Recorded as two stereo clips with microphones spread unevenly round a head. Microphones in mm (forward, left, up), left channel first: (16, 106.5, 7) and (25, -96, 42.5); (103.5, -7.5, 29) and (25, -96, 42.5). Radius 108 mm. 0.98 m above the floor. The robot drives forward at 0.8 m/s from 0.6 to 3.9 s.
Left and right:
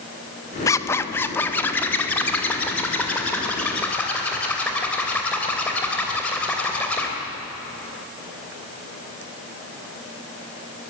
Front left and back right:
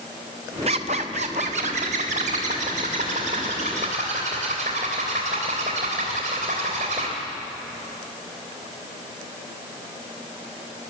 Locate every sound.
0.7 s a zipper: 170° left, 0.6 m; by 7.2 s straight behind, 3 m